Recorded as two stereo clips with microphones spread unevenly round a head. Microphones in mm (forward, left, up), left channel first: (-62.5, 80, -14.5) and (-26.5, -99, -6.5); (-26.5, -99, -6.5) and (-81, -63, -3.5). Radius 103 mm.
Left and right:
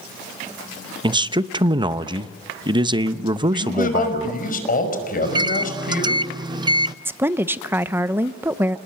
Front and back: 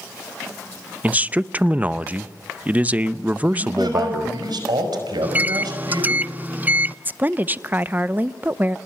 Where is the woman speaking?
155° right, 0.8 m.